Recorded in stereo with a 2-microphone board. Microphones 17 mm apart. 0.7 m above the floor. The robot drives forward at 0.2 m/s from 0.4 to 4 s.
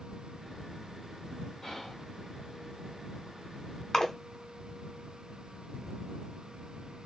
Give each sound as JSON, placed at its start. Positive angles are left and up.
{"t": 1.6, "sound": "whispering", "side_deg": 40, "distance_m": 1.5}
{"t": 3.9, "sound": "a splash", "side_deg": 35, "distance_m": 0.8}